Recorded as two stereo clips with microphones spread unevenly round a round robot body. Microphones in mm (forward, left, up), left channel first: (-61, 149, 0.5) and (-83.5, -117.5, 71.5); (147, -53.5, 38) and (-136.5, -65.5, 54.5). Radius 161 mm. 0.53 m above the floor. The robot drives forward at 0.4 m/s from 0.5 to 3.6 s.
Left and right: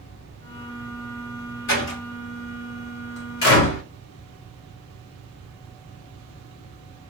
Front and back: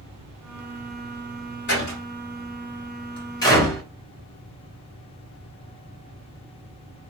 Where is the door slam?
55° left, 1.8 m; by 3.8 s 80° left, 1.5 m.